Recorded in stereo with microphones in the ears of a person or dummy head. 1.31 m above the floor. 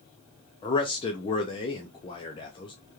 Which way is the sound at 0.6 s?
25° left (ahead or behind).